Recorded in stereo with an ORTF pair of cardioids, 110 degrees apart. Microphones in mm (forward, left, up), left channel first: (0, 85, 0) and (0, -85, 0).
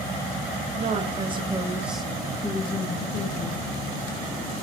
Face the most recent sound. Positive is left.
turn(degrees=60)